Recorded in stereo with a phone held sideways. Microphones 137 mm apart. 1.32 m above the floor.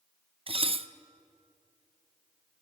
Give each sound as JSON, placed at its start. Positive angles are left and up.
{"t": 0.5, "sound": "dishes clattering", "side_deg": -45, "distance_m": 0.5}